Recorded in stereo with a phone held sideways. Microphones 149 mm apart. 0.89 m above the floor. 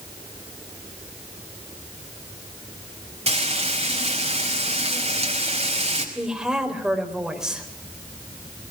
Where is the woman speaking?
5° right (ahead or behind), 4 m.